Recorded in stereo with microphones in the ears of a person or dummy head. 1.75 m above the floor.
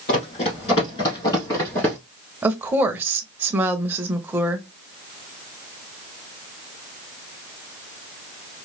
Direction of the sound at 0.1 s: 35° left (ahead or behind).